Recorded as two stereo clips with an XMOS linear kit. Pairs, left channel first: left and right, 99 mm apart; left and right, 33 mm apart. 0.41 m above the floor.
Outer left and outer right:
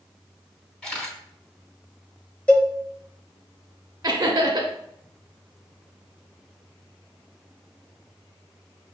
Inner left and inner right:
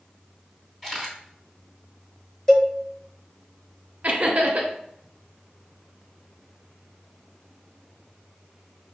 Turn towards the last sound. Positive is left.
turn(degrees=-40)  # may be behind; listen again after turning